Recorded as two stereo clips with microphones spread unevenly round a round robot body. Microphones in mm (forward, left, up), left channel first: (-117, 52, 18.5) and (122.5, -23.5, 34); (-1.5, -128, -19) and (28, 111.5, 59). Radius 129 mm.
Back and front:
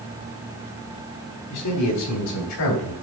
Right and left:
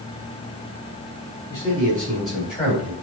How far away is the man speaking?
About 3.5 m.